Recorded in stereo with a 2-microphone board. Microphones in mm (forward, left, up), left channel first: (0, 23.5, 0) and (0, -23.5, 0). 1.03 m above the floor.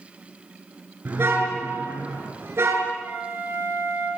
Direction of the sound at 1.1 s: 55° right (ahead or behind).